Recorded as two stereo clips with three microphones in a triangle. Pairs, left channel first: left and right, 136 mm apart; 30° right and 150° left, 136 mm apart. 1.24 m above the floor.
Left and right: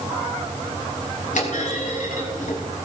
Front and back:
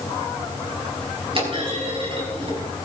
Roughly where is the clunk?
Left.